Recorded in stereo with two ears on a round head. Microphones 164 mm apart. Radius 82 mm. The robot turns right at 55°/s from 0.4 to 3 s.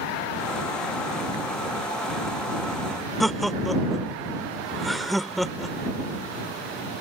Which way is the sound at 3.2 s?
Centre (ahead or behind).